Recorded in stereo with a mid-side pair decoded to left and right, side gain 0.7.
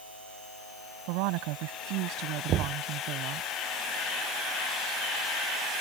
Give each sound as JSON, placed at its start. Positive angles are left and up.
{"t": 1.1, "sound": "a woman speaking", "azimuth_deg": -70}
{"t": 2.5, "sound": "knocking", "azimuth_deg": -45}